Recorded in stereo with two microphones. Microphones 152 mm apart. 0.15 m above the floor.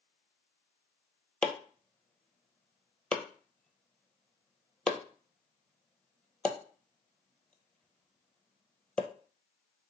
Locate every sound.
1.4 s chopping: 5° left (ahead or behind), 0.7 m